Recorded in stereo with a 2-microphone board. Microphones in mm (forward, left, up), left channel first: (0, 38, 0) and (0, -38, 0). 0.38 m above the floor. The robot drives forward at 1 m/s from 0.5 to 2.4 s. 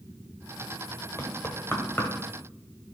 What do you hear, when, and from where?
1.2 s knocking: 35° left (ahead or behind), 1.4 m; by 2.1 s 25° left (ahead or behind), 1.9 m